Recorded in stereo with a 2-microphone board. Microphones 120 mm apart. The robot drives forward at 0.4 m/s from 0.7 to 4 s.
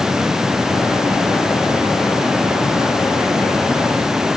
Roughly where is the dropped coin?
No dropped coin in this recording.